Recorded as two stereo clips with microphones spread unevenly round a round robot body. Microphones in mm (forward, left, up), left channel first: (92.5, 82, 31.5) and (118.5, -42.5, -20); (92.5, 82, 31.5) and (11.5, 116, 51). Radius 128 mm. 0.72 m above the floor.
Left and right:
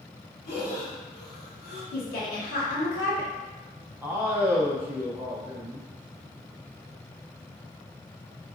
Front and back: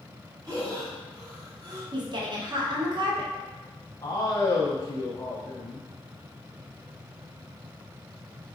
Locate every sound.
0.5 s breathing: 105° left, 1.9 m
1.9 s a woman speaking: 115° left, 1.2 m
4.0 s a man speaking: 35° right, 0.7 m